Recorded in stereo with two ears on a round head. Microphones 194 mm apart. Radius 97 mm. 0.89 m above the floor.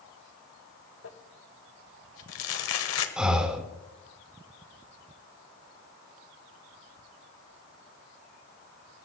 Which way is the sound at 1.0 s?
70° left (ahead or behind).